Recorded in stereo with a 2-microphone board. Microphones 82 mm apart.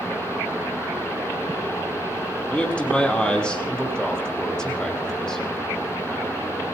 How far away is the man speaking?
About 2.5 m.